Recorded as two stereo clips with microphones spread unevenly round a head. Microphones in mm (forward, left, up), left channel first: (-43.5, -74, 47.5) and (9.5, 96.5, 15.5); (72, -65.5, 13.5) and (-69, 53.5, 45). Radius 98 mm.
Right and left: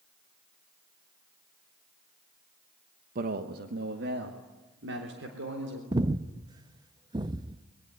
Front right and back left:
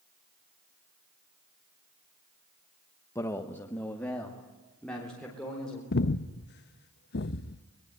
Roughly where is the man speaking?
Ahead left.